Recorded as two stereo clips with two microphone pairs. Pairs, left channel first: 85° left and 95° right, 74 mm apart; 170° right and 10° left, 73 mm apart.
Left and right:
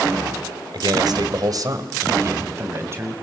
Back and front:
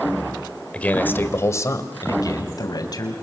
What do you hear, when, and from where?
0.7 s a man speaking: 95° right, 1.9 m; by 3.1 s 150° right, 3.5 m